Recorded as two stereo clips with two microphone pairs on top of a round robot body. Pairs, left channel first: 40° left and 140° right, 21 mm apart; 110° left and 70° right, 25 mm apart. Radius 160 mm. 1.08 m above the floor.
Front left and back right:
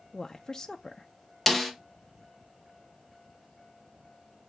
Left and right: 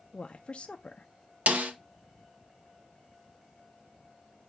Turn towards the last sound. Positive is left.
turn(degrees=-50)